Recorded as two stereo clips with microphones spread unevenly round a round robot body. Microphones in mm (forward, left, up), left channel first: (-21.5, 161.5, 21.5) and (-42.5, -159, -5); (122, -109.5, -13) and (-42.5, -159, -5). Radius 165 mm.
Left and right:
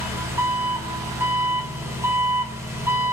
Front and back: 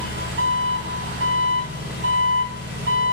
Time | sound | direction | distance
0.0 | an engine running | 175° right | 4.5 m